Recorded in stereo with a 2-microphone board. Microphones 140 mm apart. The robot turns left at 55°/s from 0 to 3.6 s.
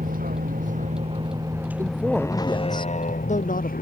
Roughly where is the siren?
I don't hear a siren.